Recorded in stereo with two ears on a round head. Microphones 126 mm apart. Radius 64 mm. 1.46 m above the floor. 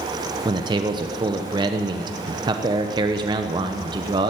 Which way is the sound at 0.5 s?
30° right (ahead or behind).